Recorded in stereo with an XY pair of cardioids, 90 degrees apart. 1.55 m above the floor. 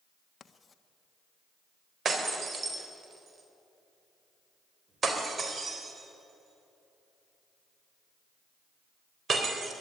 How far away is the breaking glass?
About 3.5 m.